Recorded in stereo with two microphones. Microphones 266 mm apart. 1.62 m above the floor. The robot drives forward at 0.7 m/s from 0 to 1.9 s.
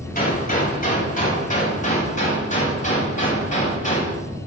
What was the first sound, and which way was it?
A gunshot, 35° left (ahead or behind).